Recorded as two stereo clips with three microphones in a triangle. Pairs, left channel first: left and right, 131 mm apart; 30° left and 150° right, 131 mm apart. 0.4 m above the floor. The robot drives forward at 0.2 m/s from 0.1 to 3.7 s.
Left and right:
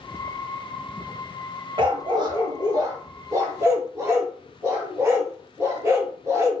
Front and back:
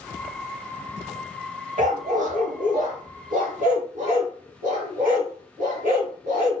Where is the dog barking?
145° right, 0.5 m; by 6.6 s 160° right, 0.9 m.